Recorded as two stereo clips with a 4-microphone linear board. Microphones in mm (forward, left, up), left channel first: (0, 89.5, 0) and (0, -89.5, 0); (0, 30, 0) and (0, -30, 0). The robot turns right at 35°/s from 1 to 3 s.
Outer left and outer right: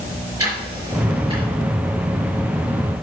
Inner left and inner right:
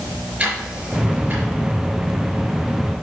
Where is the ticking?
20° right (ahead or behind), 4 m; by 1.5 s 35° right (ahead or behind), 4 m.